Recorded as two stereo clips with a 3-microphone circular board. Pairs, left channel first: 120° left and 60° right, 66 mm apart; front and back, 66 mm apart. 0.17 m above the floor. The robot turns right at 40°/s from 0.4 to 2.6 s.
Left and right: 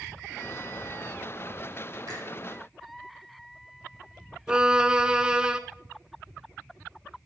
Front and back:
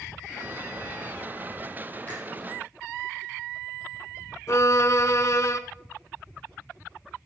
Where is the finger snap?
65° right, 5 m; by 2.2 s 60° right, 5 m.